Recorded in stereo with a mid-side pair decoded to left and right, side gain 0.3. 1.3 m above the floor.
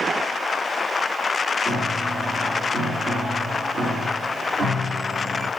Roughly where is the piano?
Right.